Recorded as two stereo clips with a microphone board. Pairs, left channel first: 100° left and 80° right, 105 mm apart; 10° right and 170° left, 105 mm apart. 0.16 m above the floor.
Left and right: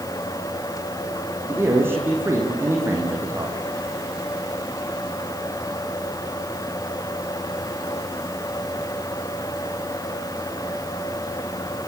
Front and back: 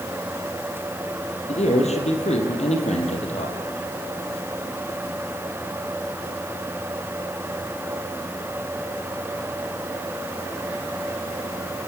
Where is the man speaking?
10° right, 6 m.